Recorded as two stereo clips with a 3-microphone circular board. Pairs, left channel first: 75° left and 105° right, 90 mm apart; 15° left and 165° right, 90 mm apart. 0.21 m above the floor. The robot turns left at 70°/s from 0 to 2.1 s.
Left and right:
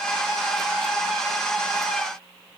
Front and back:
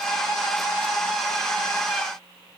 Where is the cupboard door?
I don't hear a cupboard door.